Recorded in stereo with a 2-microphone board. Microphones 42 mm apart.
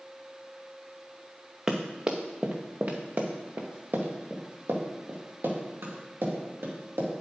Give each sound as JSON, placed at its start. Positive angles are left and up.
{"t": 1.7, "sound": "running footsteps", "side_deg": -25, "distance_m": 1.3}